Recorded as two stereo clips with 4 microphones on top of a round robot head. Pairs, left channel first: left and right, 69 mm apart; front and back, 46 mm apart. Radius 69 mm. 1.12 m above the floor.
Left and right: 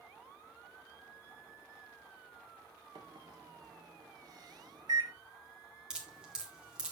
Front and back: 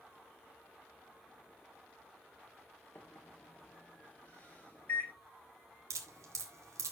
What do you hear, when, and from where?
3.0 s a microwave: 55° right, 1.8 m
5.9 s dripping: 170° right, 1.7 m